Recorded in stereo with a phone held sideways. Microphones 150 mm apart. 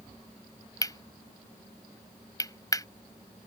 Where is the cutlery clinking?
25° left (ahead or behind).